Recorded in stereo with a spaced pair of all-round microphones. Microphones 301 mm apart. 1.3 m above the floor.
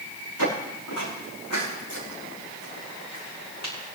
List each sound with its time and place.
0.4 s footsteps: 75° left (ahead or behind), 6.5 m; by 3.7 s 65° left (ahead or behind), 7 m